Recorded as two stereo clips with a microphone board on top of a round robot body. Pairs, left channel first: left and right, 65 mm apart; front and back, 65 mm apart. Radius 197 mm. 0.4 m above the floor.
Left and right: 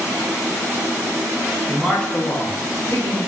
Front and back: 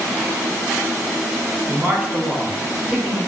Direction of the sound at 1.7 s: 175° right.